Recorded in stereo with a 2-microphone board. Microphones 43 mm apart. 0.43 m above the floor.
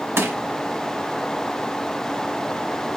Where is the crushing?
85° right, 1.2 m.